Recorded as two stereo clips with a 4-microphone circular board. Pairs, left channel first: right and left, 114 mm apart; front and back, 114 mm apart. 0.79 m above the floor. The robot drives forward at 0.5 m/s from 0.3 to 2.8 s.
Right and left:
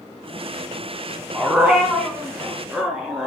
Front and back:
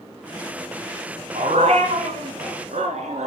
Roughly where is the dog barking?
Behind.